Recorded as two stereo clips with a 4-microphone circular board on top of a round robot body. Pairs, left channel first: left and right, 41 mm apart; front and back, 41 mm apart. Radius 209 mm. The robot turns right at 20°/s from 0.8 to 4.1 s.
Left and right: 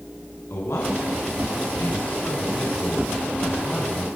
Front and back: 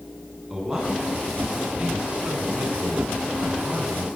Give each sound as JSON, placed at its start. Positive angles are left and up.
{"t": 0.5, "sound": "a man speaking", "azimuth_deg": 100, "distance_m": 9.5}